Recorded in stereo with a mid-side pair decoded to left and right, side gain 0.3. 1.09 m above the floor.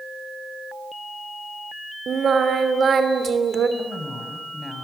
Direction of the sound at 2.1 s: 65° right.